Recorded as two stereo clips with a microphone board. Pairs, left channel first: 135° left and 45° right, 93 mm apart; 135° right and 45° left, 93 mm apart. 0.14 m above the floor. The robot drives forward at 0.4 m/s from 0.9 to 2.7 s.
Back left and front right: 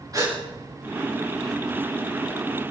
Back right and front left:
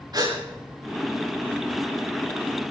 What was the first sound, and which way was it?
A gasp, 5° left.